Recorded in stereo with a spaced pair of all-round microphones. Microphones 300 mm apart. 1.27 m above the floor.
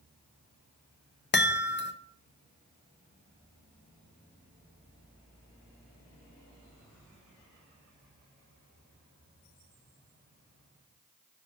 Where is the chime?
35° left (ahead or behind), 0.5 m.